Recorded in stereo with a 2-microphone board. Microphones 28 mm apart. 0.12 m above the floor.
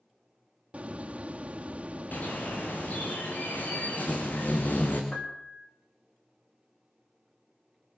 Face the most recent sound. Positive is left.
turn(degrees=45)  # may be behind; listen again after turning